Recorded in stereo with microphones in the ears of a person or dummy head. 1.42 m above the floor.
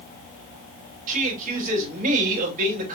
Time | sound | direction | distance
1.1 | a man speaking | 50° right (ahead or behind) | 3 m